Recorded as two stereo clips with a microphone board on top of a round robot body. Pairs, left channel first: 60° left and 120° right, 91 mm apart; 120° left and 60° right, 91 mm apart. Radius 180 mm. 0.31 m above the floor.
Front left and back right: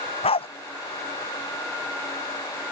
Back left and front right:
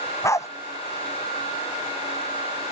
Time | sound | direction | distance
0.2 | a dog barking | 60° left | ?